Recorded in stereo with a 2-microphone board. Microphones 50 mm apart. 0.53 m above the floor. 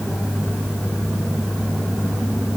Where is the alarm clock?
No alarm clock in this recording.